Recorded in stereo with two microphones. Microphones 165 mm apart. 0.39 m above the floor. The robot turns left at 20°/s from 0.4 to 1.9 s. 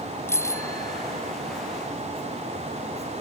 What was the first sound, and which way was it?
A bicycle bell, 15° left (ahead or behind).